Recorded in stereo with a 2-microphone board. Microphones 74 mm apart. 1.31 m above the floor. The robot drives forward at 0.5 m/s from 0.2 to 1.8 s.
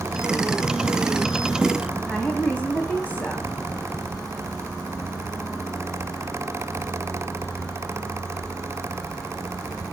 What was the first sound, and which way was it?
A woman speaking, 25° left (ahead or behind).